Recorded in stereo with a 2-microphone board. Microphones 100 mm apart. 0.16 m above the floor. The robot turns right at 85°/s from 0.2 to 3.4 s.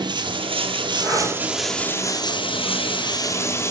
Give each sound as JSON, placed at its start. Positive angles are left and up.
{"t": 0.0, "sound": "running water", "azimuth_deg": -120, "distance_m": 0.9}
{"t": 1.0, "sound": "breathing", "side_deg": 0, "distance_m": 4.5}